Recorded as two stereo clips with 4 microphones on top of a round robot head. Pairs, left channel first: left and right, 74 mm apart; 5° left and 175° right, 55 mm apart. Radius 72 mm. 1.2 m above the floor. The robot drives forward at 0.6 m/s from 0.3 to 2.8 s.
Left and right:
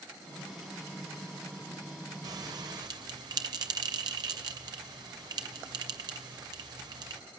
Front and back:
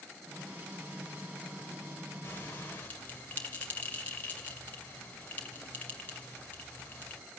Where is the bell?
60° right, 2.5 m; by 7.2 s 65° right, 2 m.